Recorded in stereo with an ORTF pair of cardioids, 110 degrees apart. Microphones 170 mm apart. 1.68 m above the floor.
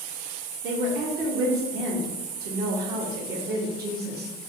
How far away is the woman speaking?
About 1.6 m.